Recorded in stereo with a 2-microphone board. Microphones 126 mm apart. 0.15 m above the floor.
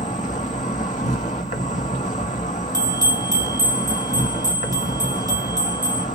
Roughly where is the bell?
Right.